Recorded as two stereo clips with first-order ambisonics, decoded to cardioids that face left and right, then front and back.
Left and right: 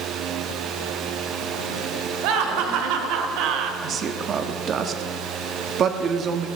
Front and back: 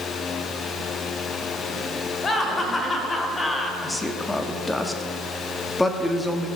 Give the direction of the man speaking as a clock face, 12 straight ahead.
3 o'clock.